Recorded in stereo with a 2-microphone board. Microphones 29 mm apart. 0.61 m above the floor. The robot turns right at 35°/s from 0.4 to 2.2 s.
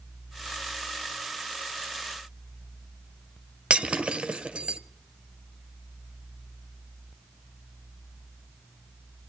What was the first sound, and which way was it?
Breaking glass, 40° right (ahead or behind).